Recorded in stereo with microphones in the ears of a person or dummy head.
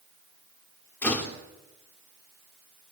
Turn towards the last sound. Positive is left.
turn(degrees=10)  # may be behind; listen again after turning